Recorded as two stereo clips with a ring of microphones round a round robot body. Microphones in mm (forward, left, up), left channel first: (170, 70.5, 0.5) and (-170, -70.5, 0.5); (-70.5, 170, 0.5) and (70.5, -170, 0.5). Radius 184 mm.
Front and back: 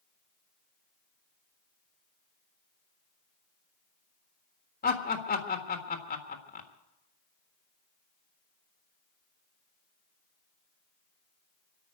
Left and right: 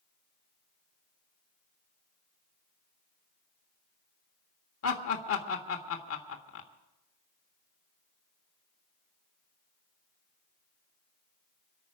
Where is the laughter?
80° left, 1.5 m.